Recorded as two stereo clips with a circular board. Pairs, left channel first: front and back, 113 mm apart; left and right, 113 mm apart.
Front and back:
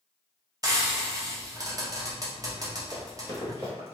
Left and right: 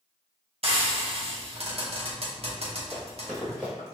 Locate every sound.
0.6 s frying: 120° right, 0.8 m
2.9 s running footsteps: 175° left, 1.8 m; by 4.0 s 165° right, 1.5 m